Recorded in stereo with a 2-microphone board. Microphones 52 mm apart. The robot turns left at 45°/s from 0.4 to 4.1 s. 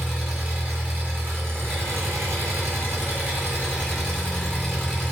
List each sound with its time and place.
0.0 s an engine running: 10° right, 1.6 m; by 5.1 s 175° right, 1.6 m